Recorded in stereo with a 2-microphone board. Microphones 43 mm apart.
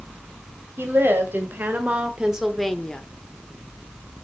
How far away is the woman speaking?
About 3 m.